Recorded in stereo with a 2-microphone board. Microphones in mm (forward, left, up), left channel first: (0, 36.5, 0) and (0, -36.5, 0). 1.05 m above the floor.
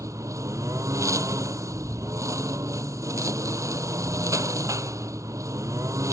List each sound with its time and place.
0.0 s a lawn mower: 45° right (ahead or behind)